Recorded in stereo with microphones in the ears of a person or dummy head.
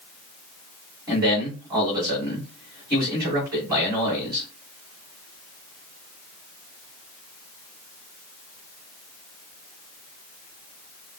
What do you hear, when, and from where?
1.1 s a man speaking: 15° right (ahead or behind), 3.5 m